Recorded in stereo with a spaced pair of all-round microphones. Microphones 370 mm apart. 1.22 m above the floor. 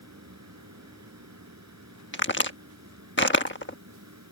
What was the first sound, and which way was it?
A fan, 45° right (ahead or behind).